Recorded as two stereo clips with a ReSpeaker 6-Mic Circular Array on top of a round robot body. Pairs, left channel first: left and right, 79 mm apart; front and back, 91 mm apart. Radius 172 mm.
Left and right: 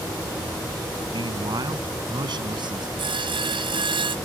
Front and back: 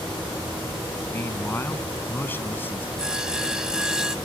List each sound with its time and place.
1.1 s a man speaking: 65° right; by 2.9 s 70° right
3.0 s sawing: 95° right